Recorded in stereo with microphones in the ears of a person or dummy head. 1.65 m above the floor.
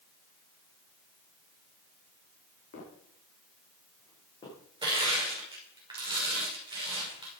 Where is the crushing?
25° right (ahead or behind), 5.5 m.